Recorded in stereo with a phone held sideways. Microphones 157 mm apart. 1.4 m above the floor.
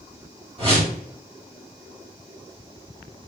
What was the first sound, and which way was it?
A whoosh, 35° right (ahead or behind).